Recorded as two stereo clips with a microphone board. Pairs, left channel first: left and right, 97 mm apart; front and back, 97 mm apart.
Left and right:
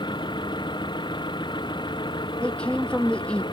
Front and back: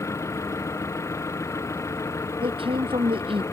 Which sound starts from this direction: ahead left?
An engine running, at 0.0 s.